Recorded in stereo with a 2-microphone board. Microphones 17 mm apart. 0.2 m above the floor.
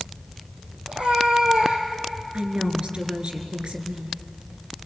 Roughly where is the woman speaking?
Right.